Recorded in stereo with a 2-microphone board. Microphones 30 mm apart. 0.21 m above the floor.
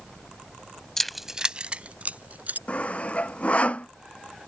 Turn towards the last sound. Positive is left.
turn(degrees=50)  # may be behind; listen again after turning